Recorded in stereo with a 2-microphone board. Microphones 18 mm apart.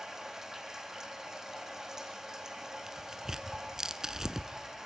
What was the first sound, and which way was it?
Running water, 25° right (ahead or behind).